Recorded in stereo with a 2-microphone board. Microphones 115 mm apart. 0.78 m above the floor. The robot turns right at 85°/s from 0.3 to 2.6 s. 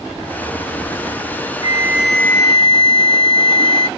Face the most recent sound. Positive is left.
turn(degrees=45)